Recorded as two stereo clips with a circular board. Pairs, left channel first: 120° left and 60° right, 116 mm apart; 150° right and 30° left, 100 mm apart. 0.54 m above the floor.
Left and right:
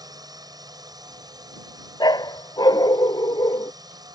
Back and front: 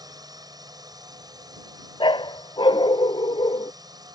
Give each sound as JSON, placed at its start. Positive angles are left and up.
{"t": 0.0, "sound": "a drone", "azimuth_deg": -10}
{"t": 2.0, "sound": "a dog barking", "azimuth_deg": 175}